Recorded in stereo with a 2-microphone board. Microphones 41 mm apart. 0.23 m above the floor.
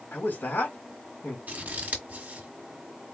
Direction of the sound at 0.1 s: 55° left (ahead or behind).